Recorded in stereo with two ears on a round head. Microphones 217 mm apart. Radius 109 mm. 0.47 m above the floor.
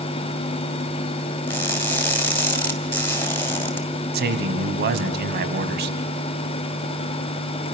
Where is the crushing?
10° left (ahead or behind), 2.5 m.